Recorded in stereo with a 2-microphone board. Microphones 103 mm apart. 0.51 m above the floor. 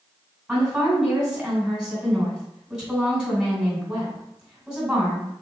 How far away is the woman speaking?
About 2 m.